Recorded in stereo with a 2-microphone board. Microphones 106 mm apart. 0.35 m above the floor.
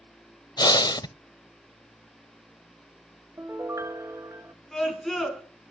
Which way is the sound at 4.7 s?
5° left (ahead or behind).